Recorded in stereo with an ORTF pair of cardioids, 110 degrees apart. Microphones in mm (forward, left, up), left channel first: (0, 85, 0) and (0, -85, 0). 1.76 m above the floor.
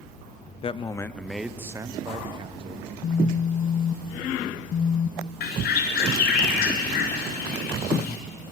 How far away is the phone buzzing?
About 1.3 m.